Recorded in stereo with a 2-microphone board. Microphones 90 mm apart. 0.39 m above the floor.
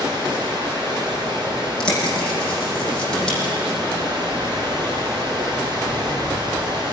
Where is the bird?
10° left (ahead or behind), 9.5 m.